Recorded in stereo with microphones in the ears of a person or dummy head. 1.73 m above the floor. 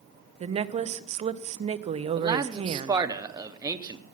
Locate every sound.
0.4 s a woman speaking: 25° right (ahead or behind), 0.6 m
2.2 s a man speaking: 20° right (ahead or behind), 0.8 m